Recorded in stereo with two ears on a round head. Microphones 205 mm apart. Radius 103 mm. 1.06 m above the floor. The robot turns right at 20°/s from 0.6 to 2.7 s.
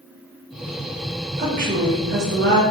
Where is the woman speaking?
35° right (ahead or behind), 0.9 m; by 2.6 s 50° right (ahead or behind), 0.9 m.